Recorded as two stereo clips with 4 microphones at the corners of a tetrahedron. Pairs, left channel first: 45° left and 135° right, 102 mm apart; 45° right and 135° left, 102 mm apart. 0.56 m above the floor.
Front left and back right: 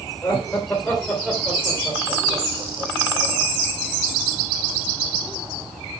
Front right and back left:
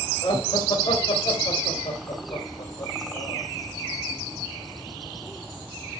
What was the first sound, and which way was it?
Laughter, 20° right.